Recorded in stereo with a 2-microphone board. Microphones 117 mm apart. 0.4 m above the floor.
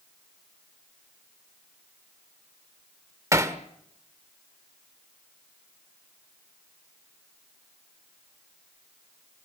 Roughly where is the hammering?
Right.